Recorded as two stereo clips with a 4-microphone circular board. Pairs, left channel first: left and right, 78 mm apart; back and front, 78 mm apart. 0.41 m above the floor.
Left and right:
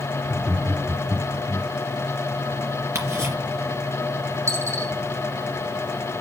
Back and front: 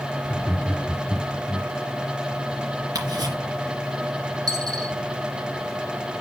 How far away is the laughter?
About 1.0 m.